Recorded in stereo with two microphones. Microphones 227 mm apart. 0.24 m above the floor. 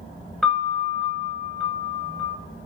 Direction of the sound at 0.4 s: Centre (ahead or behind).